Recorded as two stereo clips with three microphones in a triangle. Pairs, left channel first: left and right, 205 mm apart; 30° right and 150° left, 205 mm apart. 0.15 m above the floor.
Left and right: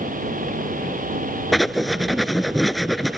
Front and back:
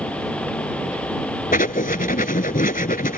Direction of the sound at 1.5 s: Straight ahead.